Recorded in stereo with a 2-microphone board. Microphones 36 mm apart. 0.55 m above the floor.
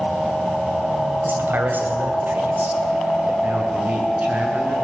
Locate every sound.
1.2 s a man speaking: 70° right (ahead or behind), 3.5 m; by 3.3 s 60° right (ahead or behind), 3 m
3.4 s a man speaking: 45° right (ahead or behind), 7.5 m